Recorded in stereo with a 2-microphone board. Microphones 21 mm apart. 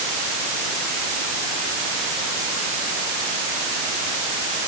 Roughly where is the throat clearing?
I don't hear throat clearing.